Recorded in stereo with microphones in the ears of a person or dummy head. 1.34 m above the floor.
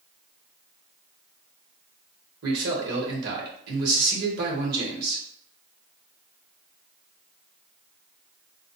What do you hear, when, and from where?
2.4 s a man speaking: 55° right (ahead or behind), 2 m